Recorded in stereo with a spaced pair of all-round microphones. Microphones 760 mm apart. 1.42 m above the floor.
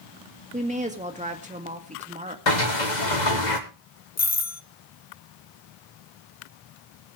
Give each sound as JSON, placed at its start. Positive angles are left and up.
{"t": 0.5, "sound": "a woman speaking", "side_deg": -10, "distance_m": 1.8}
{"t": 2.5, "sound": "a sliding door", "side_deg": 70, "distance_m": 1.6}
{"t": 4.2, "sound": "a doorbell", "side_deg": 25, "distance_m": 0.6}